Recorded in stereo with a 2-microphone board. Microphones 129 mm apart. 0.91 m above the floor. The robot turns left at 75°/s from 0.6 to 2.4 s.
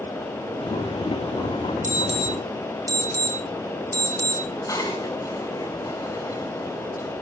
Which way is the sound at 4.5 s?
25° left (ahead or behind).